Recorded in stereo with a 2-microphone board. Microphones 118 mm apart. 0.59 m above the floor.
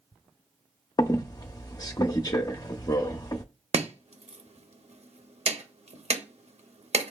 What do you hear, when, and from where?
1.0 s a squeak: 30° left (ahead or behind), 0.5 m
3.7 s chopping: 65° right (ahead or behind), 0.6 m